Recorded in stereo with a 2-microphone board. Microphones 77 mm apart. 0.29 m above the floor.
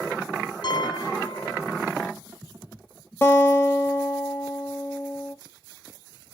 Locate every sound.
0.6 s a piano: 60° left (ahead or behind), 0.6 m
3.2 s a guitar: 30° left (ahead or behind), 1.4 m